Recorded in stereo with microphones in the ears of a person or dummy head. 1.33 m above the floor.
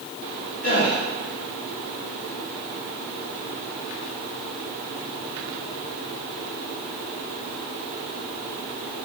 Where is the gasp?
45° left (ahead or behind), 1.1 m.